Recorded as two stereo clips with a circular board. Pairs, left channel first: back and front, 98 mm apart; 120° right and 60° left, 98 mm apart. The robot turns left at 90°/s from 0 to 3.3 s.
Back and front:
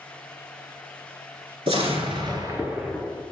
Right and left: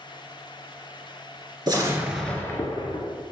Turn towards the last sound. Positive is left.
turn(degrees=-130)